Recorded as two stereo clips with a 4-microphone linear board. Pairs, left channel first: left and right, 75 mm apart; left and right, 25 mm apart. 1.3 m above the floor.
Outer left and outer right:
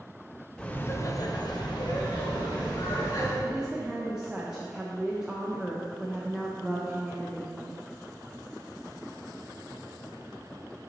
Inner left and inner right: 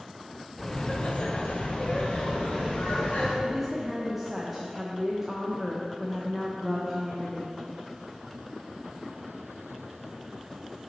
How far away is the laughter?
About 0.8 m.